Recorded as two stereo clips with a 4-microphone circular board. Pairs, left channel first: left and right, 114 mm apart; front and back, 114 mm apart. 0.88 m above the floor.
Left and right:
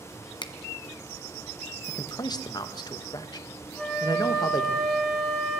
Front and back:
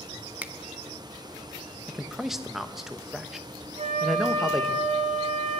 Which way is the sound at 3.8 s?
175° left.